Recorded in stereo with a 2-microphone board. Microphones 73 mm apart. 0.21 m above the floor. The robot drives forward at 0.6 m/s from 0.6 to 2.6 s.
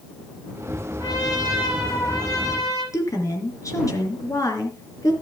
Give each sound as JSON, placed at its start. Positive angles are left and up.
{"t": 1.0, "sound": "a trumpet", "side_deg": 70, "distance_m": 6.5}
{"t": 2.9, "sound": "a woman speaking", "side_deg": 50, "distance_m": 3.5}